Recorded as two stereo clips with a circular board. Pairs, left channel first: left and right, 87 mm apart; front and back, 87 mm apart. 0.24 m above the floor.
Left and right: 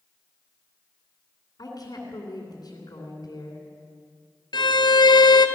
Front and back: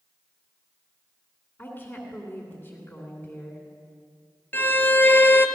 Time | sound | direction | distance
1.6 | a woman speaking | 60° left | 2.5 m
4.5 | a violin | 65° left | 0.9 m